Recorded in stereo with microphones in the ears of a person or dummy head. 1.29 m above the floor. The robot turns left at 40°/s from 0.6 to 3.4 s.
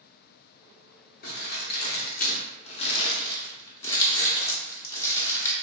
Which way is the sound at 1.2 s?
50° left (ahead or behind).